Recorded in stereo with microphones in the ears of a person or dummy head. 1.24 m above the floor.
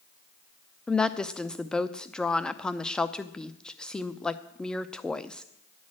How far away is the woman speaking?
About 0.6 m.